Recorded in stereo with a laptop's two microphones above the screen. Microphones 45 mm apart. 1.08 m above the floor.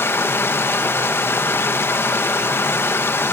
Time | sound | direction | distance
0.0 | running water | 60° left (ahead or behind) | 1.0 m